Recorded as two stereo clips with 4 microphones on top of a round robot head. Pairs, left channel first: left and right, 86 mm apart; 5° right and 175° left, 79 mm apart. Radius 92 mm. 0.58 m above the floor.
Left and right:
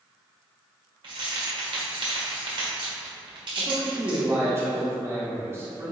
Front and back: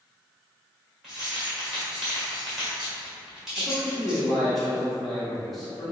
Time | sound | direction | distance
1.0 | keys jangling | 100° right | 1.6 m
3.6 | a man speaking | 90° right | 1.0 m